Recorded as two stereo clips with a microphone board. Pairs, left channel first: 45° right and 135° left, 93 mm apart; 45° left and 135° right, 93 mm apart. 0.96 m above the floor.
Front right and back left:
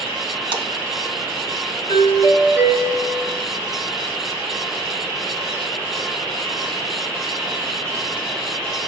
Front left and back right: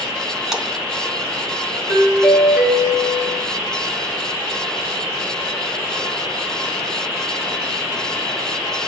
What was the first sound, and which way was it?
A splash, 140° left.